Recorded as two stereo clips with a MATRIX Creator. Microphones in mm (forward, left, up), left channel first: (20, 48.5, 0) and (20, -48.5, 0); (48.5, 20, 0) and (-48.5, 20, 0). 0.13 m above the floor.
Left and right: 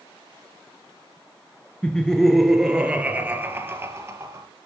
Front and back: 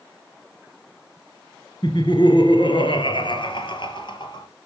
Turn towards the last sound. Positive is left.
turn(degrees=-35)